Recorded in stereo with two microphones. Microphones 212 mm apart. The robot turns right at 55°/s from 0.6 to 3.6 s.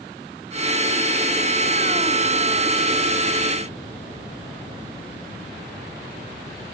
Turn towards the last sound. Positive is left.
No sound to turn to.